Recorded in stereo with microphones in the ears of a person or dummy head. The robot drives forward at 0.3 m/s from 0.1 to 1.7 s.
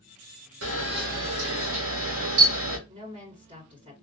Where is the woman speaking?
35° right (ahead or behind), 2.5 m.